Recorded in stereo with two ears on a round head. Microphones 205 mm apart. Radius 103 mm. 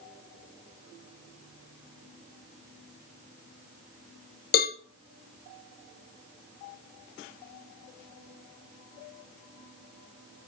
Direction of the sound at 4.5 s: 40° left (ahead or behind).